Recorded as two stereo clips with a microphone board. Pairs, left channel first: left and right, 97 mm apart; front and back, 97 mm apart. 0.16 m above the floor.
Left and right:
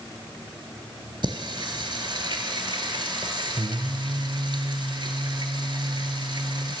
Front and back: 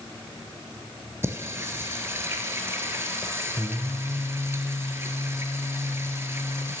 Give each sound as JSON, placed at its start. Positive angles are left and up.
{"t": 1.2, "sound": "singing", "azimuth_deg": -120, "distance_m": 0.6}